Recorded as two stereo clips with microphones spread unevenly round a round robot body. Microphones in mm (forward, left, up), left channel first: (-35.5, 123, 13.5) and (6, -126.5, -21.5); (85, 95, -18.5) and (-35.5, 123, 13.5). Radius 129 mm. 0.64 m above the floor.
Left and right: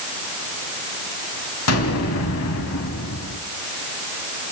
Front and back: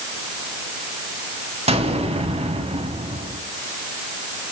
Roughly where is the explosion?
Behind left.